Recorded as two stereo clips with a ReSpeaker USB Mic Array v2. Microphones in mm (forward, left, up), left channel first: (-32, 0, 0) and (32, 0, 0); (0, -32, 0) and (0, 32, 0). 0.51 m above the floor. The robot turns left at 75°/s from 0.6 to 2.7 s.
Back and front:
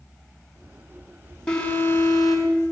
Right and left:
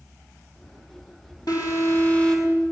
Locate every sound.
1.5 s an alarm: 105° right, 6.5 m; by 2.6 s 175° left, 6.5 m